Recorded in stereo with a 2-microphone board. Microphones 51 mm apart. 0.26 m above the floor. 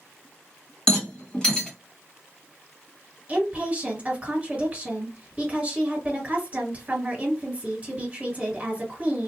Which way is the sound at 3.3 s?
30° right (ahead or behind).